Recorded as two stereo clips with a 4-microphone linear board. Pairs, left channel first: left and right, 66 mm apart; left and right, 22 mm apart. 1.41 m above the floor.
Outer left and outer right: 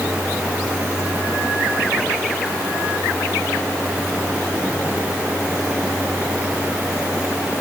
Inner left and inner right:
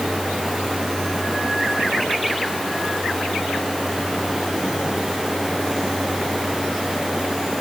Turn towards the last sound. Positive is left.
No sound to turn to.